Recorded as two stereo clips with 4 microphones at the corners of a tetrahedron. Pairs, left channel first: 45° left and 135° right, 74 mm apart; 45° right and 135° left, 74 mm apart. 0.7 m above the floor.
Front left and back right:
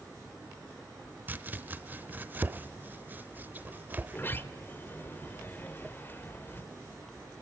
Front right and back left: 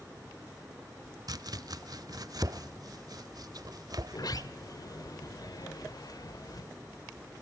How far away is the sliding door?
About 0.9 m.